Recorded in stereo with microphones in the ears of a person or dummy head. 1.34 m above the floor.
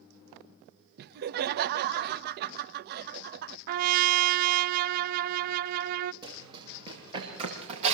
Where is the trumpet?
55° right (ahead or behind), 0.6 m.